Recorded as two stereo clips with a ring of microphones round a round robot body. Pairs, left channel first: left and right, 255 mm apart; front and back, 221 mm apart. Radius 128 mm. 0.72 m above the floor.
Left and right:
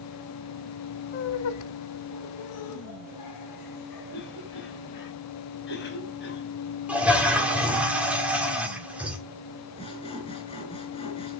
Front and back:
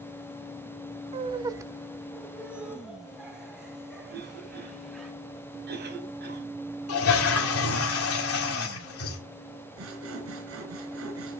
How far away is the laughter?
About 0.6 m.